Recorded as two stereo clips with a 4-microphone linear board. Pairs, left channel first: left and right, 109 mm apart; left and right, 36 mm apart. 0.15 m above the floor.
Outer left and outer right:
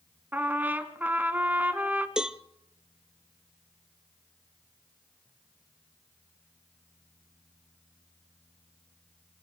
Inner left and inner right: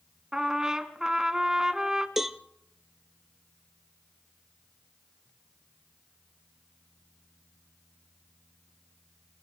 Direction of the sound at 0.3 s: 15° right (ahead or behind).